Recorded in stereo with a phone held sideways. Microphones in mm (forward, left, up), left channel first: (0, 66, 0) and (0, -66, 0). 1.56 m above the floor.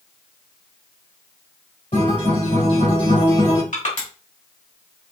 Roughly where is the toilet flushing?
No toilet flushing in this recording.